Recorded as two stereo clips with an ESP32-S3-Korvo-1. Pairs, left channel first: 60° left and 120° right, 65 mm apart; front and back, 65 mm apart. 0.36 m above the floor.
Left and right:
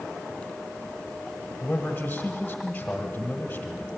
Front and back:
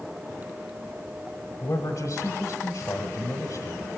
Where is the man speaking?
Straight ahead, 1.5 m.